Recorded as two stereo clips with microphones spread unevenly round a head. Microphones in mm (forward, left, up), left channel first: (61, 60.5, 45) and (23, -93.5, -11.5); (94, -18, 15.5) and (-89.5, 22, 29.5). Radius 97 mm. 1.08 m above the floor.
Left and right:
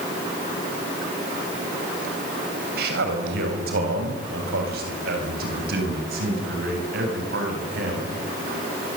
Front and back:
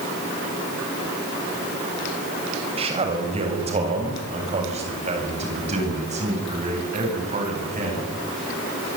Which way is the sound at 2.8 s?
130° right.